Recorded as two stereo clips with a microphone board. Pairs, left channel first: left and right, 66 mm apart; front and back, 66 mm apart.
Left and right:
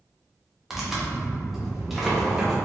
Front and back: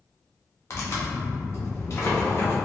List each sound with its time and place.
0.7 s tearing paper: 5° right, 0.7 m